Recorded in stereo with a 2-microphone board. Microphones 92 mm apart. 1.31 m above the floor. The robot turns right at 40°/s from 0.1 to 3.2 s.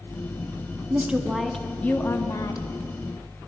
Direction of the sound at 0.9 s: 20° right.